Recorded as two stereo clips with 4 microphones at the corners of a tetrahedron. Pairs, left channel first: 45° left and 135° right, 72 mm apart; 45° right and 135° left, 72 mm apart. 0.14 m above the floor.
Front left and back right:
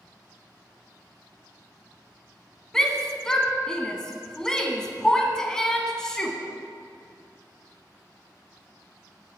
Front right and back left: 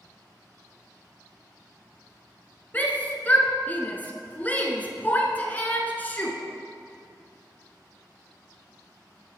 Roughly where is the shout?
Ahead right.